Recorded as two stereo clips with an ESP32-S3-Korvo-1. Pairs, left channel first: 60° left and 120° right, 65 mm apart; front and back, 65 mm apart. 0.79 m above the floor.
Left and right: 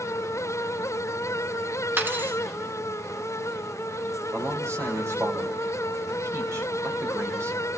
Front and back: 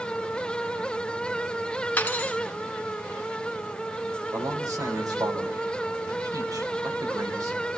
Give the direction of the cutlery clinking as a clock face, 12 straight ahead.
2 o'clock.